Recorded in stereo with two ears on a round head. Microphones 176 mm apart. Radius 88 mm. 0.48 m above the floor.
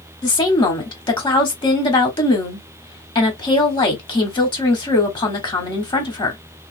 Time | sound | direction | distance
0.2 | a woman speaking | 25° left (ahead or behind) | 1.2 m